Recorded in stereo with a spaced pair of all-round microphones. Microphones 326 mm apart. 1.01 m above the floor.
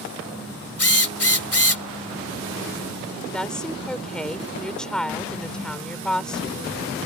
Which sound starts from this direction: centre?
A woman speaking, at 3.3 s.